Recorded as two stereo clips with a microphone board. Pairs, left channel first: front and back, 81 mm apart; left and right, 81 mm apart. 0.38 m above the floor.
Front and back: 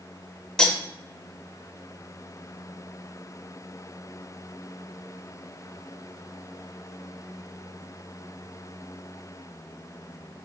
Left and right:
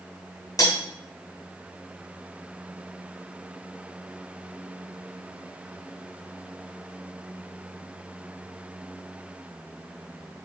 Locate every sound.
0.6 s cutlery clinking: 80° left, 0.7 m